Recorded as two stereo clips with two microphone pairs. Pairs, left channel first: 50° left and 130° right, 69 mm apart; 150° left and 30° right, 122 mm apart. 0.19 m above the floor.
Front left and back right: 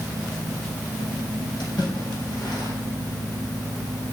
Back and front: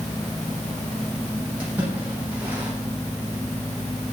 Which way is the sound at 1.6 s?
45° left.